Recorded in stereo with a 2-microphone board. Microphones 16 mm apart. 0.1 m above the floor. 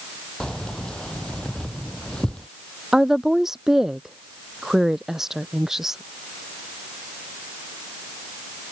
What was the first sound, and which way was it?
Keys jangling, 50° left (ahead or behind).